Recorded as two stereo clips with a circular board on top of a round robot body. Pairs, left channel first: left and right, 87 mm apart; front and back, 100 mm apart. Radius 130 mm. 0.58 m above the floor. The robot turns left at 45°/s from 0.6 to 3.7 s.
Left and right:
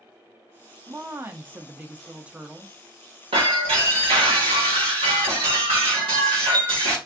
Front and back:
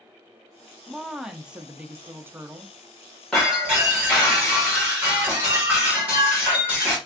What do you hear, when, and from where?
0.9 s a woman speaking: 85° right, 0.6 m; by 2.8 s 170° right, 0.6 m
3.3 s breaking glass: 85° right, 1.8 m; by 7.0 s 105° right, 1.8 m